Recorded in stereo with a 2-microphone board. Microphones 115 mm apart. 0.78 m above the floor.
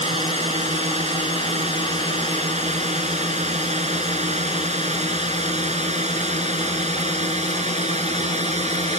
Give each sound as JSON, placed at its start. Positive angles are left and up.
{"t": 0.0, "sound": "a drone", "side_deg": -85}